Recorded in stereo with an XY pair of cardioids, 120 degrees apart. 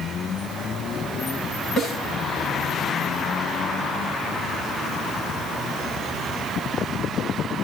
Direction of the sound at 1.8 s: 55° left.